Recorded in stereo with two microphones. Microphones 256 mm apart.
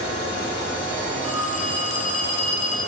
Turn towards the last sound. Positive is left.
turn(degrees=75)  # may be behind; listen again after turning